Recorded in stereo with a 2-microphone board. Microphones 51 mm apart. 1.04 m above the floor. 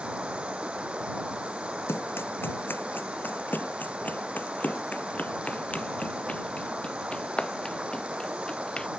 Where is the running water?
25° right (ahead or behind).